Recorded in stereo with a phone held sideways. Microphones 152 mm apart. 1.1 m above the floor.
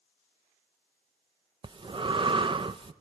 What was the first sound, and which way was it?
Breathing, 35° right (ahead or behind).